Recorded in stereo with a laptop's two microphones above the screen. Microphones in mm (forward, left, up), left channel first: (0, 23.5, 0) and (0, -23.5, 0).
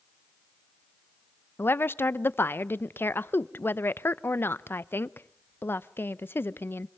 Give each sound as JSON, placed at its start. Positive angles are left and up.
{"t": 1.6, "sound": "a woman speaking", "side_deg": 50, "distance_m": 0.6}